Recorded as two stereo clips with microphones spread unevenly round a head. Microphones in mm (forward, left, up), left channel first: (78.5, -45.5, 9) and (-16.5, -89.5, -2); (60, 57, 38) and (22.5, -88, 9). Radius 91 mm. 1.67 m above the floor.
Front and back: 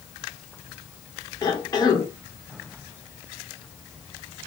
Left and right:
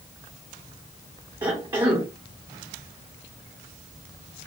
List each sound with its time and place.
1.4 s a cough: 35° right, 1.5 m